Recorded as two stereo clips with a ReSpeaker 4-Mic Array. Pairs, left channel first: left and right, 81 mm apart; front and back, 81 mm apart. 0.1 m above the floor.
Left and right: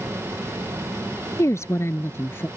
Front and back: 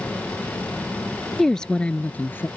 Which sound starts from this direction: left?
A woman speaking, at 1.4 s.